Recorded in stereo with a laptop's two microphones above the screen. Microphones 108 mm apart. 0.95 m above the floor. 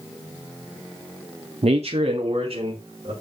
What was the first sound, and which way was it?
A man speaking, 70° right (ahead or behind).